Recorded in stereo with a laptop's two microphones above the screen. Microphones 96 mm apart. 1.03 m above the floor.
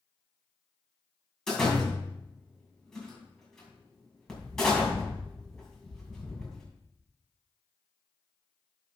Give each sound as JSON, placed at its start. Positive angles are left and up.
{"t": 1.5, "sound": "a door slam", "side_deg": 5, "distance_m": 5.5}